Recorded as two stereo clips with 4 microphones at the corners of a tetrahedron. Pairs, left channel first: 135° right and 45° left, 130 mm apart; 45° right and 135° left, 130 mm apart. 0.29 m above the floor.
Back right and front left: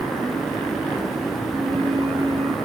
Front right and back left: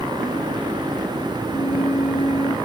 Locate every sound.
1.5 s a flute: straight ahead, 2.5 m